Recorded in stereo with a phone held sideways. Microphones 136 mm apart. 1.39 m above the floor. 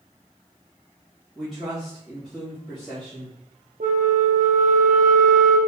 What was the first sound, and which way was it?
A man speaking, centre (ahead or behind).